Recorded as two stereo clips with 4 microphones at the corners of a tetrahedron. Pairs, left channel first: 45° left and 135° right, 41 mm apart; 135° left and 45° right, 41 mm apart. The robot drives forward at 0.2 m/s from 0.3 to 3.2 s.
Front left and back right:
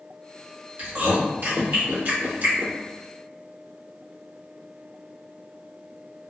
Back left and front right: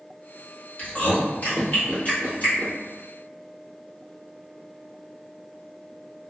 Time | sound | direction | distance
0.8 | chewing | 175° right | 1.4 m